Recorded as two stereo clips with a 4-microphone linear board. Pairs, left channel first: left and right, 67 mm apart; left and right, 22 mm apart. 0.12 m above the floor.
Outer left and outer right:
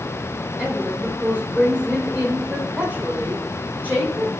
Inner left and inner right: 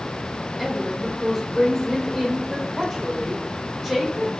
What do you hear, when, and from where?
0.6 s a woman speaking: 25° right (ahead or behind), 6 m